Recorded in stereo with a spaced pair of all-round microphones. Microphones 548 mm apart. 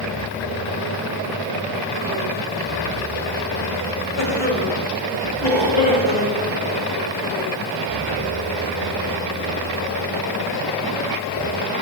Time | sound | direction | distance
4.2 | a cough | 60° left (ahead or behind) | 6 m